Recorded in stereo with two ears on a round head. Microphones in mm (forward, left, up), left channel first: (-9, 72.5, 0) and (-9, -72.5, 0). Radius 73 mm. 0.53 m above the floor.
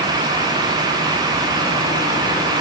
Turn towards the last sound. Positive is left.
No sound to turn to.